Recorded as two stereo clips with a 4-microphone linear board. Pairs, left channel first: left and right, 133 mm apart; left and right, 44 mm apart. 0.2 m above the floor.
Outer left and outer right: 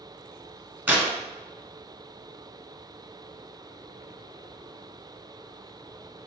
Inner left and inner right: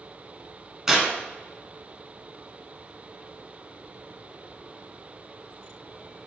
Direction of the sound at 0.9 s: 15° right (ahead or behind).